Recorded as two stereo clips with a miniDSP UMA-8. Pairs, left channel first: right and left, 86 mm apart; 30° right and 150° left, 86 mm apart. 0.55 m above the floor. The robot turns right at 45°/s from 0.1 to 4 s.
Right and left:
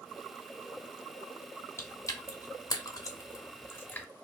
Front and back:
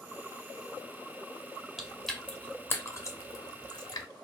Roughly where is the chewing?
Behind right.